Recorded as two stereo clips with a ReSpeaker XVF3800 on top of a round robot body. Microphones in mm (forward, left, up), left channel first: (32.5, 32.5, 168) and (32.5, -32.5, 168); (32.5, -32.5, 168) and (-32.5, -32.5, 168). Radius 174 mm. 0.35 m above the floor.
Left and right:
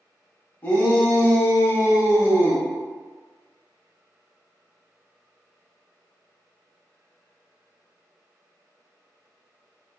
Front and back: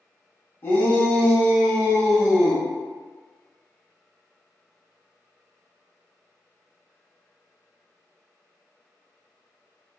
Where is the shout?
35° left, 1.5 m; by 2.6 s 105° left, 1.3 m.